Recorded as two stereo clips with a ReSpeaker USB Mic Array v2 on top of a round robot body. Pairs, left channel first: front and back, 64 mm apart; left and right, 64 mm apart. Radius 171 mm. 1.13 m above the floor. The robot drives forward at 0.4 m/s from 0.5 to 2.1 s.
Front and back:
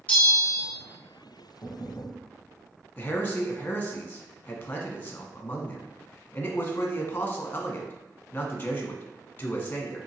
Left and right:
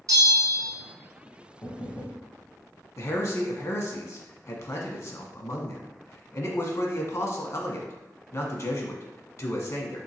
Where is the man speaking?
60° left, 0.9 m.